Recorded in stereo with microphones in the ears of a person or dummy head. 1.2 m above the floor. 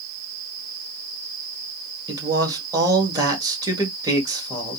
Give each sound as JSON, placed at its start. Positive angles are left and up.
{"t": 2.1, "sound": "a man speaking", "side_deg": -20, "distance_m": 1.5}